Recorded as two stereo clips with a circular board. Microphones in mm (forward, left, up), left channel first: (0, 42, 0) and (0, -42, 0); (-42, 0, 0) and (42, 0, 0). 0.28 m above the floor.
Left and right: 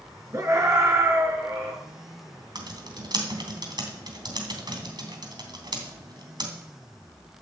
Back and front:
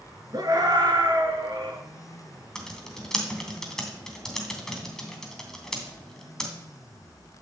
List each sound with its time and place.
0.3 s a scream: 35° right, 4.5 m
2.5 s typing on a keyboard: 100° right, 2.5 m